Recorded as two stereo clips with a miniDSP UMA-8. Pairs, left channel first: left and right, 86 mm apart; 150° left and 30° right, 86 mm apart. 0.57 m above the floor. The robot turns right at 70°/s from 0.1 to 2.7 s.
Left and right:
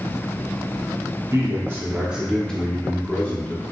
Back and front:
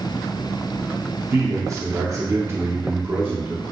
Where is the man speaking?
70° right, 0.9 m; by 3.6 s 25° left, 0.9 m.